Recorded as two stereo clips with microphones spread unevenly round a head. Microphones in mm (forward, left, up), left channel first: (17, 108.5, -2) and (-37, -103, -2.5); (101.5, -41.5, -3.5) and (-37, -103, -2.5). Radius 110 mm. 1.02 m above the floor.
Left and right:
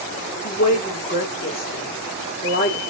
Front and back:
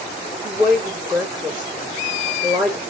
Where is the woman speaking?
125° left, 2.5 m.